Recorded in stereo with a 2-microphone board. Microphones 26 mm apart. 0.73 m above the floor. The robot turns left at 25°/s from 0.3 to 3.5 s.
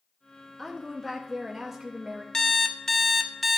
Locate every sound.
0.6 s a woman speaking: 5° left (ahead or behind), 0.7 m; by 2.2 s 15° right (ahead or behind), 0.7 m
2.3 s an alarm clock: 25° left (ahead or behind), 0.5 m; by 3.6 s centre (ahead or behind), 0.5 m